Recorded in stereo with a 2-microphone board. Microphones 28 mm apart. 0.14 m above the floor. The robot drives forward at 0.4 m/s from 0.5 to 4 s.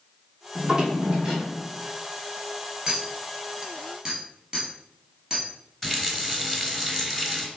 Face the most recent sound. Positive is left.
turn(degrees=5)  # may be behind; listen again after turning